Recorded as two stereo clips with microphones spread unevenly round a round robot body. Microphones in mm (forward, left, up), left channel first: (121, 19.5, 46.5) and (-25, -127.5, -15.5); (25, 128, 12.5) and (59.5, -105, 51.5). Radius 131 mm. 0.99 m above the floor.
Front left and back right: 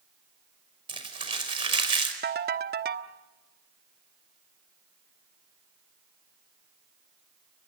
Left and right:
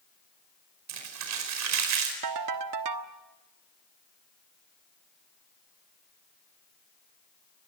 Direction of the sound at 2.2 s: 90° right.